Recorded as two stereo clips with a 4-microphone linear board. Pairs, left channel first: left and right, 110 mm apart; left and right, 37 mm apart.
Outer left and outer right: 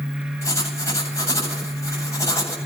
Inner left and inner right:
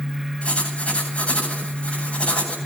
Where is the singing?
I don't hear singing.